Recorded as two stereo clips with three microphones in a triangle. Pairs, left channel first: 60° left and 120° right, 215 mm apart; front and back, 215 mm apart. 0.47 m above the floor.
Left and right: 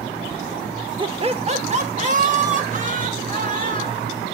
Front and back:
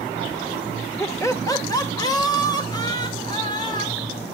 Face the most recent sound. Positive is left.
turn(degrees=-70)